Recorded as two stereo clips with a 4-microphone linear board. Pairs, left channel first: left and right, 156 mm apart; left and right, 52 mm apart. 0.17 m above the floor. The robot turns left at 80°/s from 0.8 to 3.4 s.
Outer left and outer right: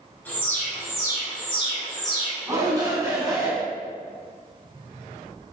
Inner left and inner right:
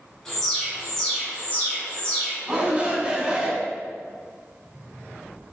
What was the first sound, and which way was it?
An alarm, 155° left.